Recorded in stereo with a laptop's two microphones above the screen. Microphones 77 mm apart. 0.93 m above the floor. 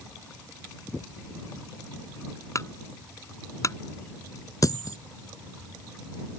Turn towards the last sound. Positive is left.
turn(degrees=50)  # may be behind; listen again after turning